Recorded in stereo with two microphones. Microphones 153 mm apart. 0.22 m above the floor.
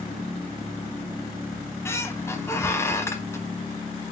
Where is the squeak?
15° left (ahead or behind), 0.8 m.